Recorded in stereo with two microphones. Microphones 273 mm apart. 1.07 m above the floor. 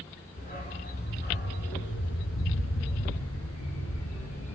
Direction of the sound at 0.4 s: 30° left (ahead or behind).